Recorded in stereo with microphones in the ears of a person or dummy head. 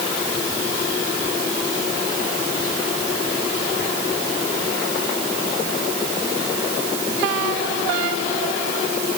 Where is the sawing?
I don't hear sawing.